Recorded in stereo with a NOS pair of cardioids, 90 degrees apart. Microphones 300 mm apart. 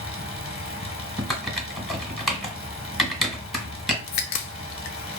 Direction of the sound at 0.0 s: 20° left.